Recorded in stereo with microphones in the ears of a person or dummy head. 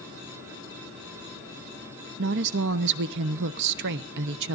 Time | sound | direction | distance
2.2 | a woman speaking | 65° right (ahead or behind) | 0.6 m